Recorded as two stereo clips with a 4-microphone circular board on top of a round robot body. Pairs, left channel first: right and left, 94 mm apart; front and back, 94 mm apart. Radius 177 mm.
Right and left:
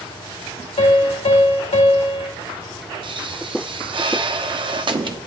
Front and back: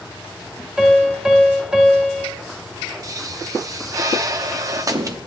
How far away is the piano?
About 2.5 m.